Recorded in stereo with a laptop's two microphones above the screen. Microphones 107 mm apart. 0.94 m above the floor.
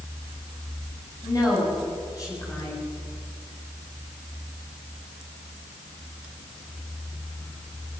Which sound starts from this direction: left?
A woman speaking, at 1.2 s.